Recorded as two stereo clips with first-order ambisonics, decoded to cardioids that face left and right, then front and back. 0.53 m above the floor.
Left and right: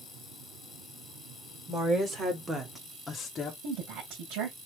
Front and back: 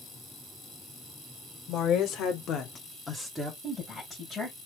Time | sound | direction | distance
1.7 | a woman speaking | 35° right | 2.5 m
3.6 | a woman speaking | 85° right | 3 m